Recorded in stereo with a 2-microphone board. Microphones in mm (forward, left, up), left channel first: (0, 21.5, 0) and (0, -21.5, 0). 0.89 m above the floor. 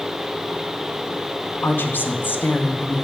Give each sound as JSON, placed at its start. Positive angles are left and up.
{"t": 1.6, "sound": "a woman speaking", "side_deg": 55, "distance_m": 0.8}